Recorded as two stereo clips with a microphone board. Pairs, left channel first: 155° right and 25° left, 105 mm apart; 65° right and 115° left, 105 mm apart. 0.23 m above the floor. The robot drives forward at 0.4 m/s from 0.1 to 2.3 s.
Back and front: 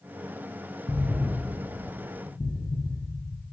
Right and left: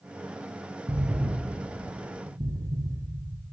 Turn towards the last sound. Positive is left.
turn(degrees=160)